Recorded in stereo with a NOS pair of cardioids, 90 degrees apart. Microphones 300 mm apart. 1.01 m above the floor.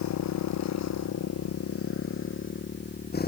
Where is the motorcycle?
70° left; by 3.3 s 30° left.